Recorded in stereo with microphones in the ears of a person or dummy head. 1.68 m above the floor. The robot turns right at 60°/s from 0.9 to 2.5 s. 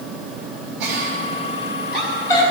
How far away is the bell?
I don't hear a bell.